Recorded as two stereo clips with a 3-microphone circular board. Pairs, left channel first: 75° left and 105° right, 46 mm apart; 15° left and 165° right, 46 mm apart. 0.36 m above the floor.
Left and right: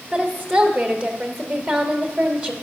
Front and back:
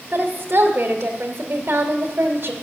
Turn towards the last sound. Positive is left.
turn(degrees=-170)